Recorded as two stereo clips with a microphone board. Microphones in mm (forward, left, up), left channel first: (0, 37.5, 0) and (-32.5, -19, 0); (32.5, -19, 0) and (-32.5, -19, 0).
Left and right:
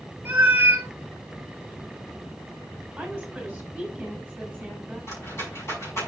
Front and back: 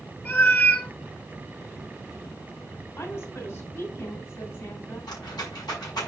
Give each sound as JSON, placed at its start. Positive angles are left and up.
{"t": 0.2, "sound": "a cat meowing", "azimuth_deg": -55, "distance_m": 1.3}
{"t": 3.0, "sound": "a woman speaking", "azimuth_deg": -30, "distance_m": 2.5}
{"t": 5.1, "sound": "a rattle", "azimuth_deg": 10, "distance_m": 5.5}